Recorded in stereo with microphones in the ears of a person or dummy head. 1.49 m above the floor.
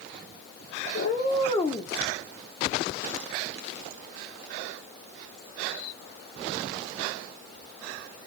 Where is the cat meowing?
60° left (ahead or behind), 1.8 m; by 1.9 s 15° left (ahead or behind), 1.8 m.